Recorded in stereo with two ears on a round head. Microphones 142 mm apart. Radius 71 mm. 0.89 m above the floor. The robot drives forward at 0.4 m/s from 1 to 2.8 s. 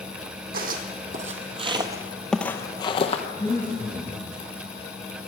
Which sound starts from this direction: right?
Footsteps, at 0.5 s.